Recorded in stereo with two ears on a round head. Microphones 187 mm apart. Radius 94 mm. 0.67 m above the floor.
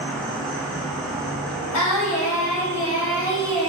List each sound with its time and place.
0.0 s an insect: 5° left (ahead or behind), 0.8 m
1.7 s singing: 85° left, 1.0 m